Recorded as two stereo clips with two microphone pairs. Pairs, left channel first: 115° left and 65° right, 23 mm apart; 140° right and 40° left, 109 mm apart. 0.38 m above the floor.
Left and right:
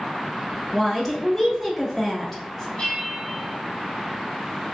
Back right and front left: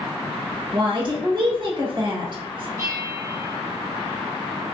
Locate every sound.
0.7 s a woman speaking: 30° left, 1.2 m
2.8 s a bell: 85° left, 1.6 m